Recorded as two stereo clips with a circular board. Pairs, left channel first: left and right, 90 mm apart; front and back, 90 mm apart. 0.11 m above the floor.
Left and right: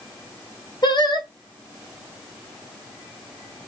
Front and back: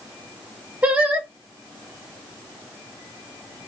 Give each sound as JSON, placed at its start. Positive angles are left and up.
{"t": 0.8, "sound": "singing", "azimuth_deg": 110, "distance_m": 2.5}